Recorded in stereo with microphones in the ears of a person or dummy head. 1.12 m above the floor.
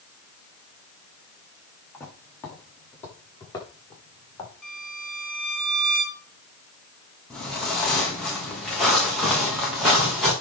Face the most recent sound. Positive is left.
turn(degrees=0)  # may be behind; listen again after turning